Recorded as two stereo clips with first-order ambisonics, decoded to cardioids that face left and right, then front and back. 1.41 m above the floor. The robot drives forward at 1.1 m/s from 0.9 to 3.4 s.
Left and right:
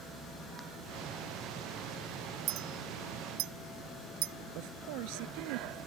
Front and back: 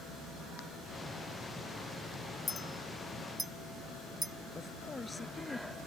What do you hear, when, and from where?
2.5 s a clink: 70° right; by 4.3 s 100° right
4.5 s a woman speaking: 80° right